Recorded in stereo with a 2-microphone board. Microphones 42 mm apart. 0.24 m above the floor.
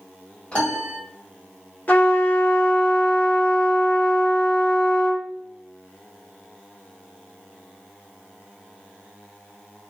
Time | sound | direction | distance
0.5 | a piano | 30° left (ahead or behind) | 1.7 m
1.9 | a trumpet | 45° left (ahead or behind) | 1.1 m